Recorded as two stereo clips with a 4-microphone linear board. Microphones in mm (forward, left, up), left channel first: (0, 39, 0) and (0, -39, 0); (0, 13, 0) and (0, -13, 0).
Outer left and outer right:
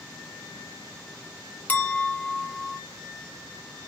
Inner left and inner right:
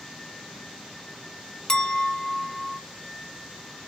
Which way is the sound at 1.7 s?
20° left (ahead or behind).